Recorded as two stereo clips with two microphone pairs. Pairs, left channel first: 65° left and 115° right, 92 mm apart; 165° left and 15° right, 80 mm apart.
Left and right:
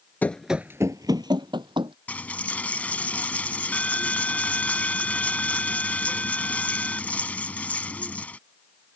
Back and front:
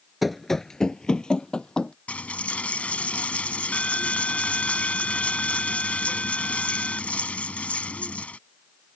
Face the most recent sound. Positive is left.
turn(degrees=120)